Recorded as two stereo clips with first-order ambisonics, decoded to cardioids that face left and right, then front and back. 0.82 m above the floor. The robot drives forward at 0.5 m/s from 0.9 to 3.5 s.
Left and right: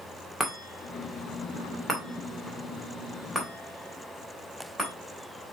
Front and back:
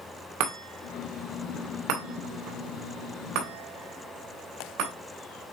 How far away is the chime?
About 1.9 m.